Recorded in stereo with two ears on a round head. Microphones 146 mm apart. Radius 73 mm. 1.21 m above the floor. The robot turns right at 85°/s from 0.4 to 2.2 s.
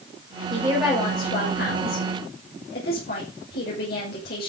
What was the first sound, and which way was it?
A woman speaking, 30° right.